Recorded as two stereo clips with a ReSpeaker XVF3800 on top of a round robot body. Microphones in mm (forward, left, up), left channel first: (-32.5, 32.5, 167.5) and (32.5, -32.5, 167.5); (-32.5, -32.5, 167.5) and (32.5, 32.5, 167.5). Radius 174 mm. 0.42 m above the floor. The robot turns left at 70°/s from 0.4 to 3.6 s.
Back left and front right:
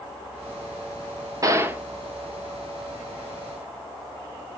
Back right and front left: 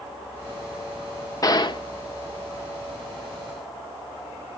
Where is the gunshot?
90° right, 1.3 m; by 1.8 s 120° right, 1.3 m.